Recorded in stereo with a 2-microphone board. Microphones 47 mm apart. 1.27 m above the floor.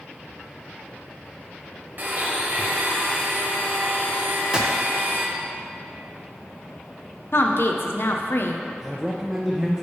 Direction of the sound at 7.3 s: 55° left (ahead or behind).